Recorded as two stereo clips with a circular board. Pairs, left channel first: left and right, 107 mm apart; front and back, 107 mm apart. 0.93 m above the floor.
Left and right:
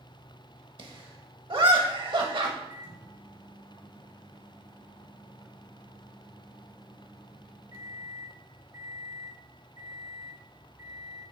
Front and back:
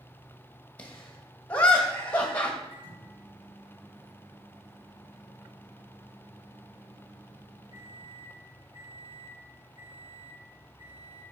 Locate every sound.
0.8 s laughter: 75° right, 1.4 m
2.7 s a microwave: 140° right, 3.5 m